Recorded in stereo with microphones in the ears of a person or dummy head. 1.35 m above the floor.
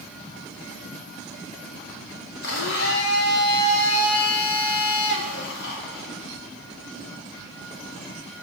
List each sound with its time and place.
2.4 s a blender: 60° left (ahead or behind), 1.5 m